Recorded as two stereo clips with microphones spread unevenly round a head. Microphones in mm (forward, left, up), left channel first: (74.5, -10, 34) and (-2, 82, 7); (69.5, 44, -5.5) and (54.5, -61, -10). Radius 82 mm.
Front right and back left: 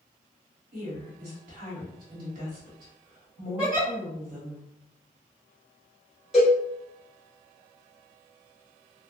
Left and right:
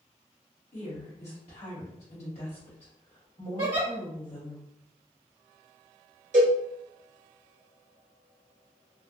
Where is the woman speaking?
140° left, 1.4 m.